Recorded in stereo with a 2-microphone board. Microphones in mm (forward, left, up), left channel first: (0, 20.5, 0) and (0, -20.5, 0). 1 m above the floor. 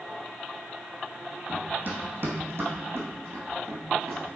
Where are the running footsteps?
40° right (ahead or behind), 1.8 m; by 4.2 s 70° right (ahead or behind), 3.5 m.